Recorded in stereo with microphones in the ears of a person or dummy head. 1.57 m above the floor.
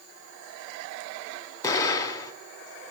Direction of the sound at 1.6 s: 25° left (ahead or behind).